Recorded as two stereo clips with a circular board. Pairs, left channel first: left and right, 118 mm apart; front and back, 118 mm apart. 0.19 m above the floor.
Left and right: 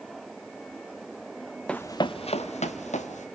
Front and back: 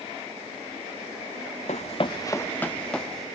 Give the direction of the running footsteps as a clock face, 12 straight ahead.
12 o'clock.